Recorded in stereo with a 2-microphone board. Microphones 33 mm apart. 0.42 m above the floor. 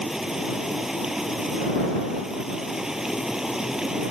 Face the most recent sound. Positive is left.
turn(degrees=-15)  # may be behind; listen again after turning